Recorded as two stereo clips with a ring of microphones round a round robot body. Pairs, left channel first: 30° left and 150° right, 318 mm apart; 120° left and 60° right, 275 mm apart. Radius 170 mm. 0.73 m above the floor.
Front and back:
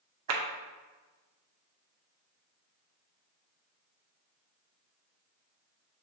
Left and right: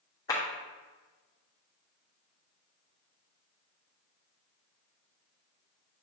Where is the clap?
165° right, 1.1 m.